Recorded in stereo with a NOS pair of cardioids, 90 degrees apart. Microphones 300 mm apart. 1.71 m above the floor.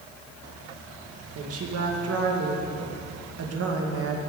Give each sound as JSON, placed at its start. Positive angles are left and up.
{"t": 1.4, "sound": "a woman speaking", "azimuth_deg": -50, "distance_m": 2.0}